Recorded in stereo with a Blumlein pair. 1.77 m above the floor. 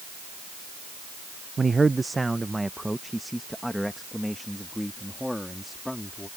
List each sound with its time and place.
1.6 s a man speaking: 15° right; by 6.3 s 5° left